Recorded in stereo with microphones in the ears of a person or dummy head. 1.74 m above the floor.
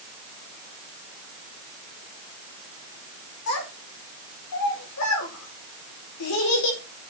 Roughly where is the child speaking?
Left.